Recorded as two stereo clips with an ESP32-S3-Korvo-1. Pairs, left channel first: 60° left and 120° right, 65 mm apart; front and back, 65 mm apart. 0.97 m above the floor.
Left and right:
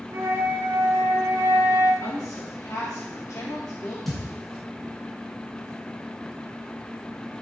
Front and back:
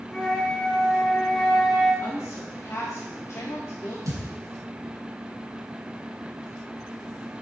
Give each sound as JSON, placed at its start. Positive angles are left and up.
{"t": 0.1, "sound": "a flute", "azimuth_deg": -80, "distance_m": 3.5}
{"t": 2.0, "sound": "a woman speaking", "azimuth_deg": 30, "distance_m": 1.7}
{"t": 4.1, "sound": "a thud", "azimuth_deg": 145, "distance_m": 2.5}